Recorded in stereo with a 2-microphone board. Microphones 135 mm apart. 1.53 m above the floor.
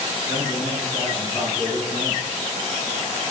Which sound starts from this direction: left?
A man speaking, at 0.3 s.